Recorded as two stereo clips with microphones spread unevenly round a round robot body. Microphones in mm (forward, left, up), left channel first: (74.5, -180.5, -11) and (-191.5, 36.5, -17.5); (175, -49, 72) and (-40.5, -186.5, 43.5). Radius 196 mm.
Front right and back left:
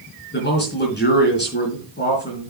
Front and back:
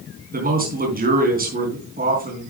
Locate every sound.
0.3 s a man speaking: 95° right, 4 m